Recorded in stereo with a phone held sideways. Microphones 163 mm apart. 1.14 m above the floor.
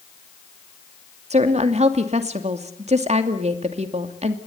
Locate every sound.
1.3 s a woman speaking: 45° right (ahead or behind), 2.5 m